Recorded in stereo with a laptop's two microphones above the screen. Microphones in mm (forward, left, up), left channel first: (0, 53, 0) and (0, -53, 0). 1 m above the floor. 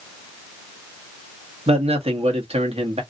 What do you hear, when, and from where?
1.7 s a man speaking: 75° right (ahead or behind), 1.1 m